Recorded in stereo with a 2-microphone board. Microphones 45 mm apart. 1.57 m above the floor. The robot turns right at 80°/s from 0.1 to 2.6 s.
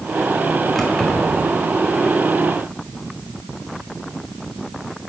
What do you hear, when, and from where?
0.8 s keys jangling: 5° left (ahead or behind), 1.8 m; by 1.4 s 50° left (ahead or behind), 1.8 m